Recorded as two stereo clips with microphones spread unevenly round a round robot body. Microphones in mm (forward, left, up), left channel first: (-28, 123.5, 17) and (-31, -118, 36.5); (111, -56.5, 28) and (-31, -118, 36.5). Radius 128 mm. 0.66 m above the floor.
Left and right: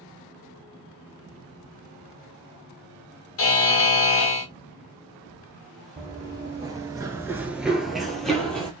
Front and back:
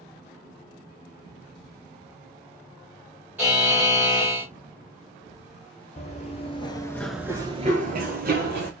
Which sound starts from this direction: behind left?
A buzzer, at 3.4 s.